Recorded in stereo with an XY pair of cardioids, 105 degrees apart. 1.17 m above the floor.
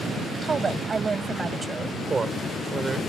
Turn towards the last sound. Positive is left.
turn(degrees=-30)